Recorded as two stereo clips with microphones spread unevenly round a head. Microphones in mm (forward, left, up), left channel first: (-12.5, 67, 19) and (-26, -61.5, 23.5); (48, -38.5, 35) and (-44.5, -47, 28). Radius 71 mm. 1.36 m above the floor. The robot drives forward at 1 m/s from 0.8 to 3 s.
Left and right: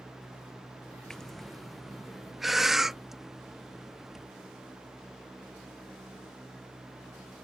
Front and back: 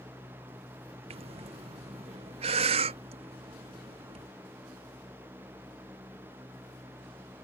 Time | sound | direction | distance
1.1 | breathing | 170° left | ?